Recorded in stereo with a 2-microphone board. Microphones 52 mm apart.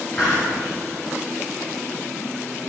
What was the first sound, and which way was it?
A hiss, 15° left (ahead or behind).